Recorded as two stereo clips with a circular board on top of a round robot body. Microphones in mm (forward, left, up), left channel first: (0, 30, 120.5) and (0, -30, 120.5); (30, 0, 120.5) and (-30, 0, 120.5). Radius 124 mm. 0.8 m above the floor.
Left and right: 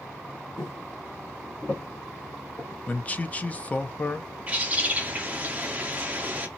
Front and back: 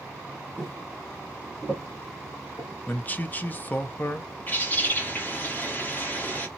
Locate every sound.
0.6 s footsteps: 95° left, 0.8 m; by 2.8 s 20° left, 1.4 m
2.9 s a man speaking: 40° left, 0.7 m
4.5 s a bird: 40° right, 1.2 m